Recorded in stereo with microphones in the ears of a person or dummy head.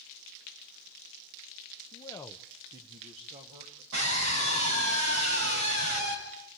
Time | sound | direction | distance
1.9 | a man speaking | 25° left (ahead or behind) | 0.9 m
3.9 | a scream | 70° right (ahead or behind) | 9 m